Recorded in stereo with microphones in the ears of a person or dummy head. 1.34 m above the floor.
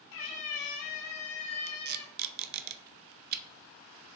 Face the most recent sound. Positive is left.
turn(degrees=-50)  # may be behind; listen again after turning